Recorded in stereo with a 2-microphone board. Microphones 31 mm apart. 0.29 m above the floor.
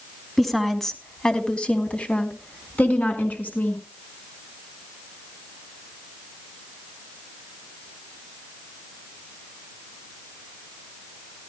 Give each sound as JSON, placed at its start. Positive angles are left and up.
{"t": 0.4, "sound": "a woman speaking", "side_deg": 0, "distance_m": 2.5}